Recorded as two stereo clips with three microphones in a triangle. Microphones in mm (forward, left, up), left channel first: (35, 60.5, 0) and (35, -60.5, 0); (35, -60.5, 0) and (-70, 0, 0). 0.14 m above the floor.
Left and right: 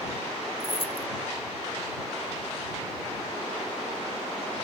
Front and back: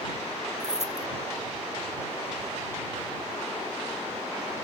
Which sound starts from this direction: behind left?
Keys jangling, at 0.6 s.